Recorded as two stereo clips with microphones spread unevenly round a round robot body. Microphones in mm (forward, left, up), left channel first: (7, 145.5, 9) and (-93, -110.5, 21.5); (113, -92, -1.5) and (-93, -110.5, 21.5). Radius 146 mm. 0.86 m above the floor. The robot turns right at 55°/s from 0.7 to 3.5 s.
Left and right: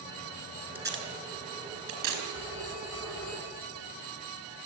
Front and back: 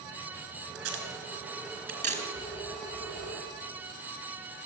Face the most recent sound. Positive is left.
turn(degrees=130)